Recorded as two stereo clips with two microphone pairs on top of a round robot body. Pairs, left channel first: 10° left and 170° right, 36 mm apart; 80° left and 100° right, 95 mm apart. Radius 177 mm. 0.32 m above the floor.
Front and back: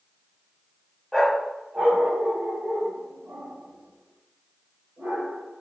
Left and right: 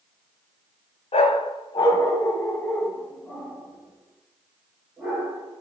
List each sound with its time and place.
1.1 s a dog barking: 100° left, 0.7 m; by 5.6 s 175° left, 2.5 m